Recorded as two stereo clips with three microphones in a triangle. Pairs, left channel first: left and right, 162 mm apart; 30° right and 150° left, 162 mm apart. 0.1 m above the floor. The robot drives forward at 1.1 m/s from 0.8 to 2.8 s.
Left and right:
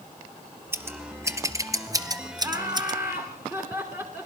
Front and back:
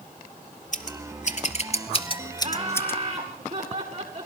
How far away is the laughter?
About 8.5 m.